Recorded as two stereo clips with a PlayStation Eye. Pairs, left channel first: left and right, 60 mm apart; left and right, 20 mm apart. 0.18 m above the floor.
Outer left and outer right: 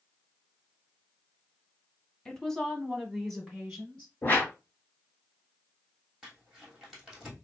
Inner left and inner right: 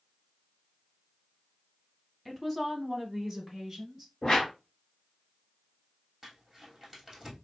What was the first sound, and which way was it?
A woman speaking, 15° left (ahead or behind).